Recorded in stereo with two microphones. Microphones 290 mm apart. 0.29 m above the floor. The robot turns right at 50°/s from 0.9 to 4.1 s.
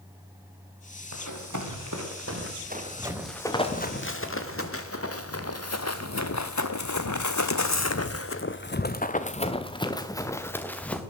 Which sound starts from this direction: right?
Running footsteps, at 1.1 s.